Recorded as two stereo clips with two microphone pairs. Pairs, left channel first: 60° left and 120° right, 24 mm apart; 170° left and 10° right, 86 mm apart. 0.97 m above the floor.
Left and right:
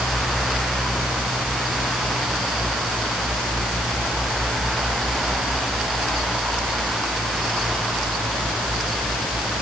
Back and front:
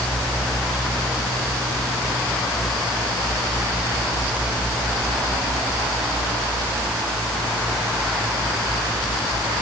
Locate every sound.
Only background noise.